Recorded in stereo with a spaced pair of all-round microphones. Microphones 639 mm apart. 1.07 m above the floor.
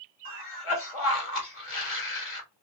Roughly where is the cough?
Left.